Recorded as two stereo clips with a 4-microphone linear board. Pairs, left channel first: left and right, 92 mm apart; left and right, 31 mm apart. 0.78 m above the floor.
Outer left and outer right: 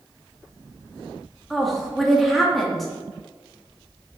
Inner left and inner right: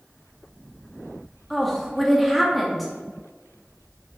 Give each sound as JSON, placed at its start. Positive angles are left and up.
{"t": 1.5, "sound": "a woman speaking", "side_deg": 0, "distance_m": 1.5}